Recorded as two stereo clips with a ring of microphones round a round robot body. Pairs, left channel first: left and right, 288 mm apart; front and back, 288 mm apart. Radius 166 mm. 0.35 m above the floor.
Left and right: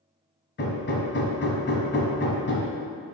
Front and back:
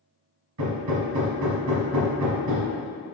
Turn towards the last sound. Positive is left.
turn(degrees=145)